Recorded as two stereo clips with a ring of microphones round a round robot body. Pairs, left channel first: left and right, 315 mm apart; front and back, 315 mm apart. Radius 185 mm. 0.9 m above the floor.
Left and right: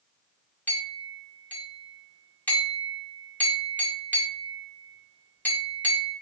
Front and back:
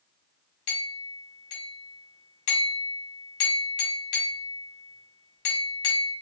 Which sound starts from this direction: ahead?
A clink, at 0.7 s.